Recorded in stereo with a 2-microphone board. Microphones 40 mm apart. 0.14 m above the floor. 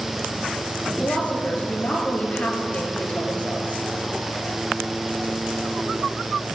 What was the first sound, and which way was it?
A woman speaking, 35° left (ahead or behind).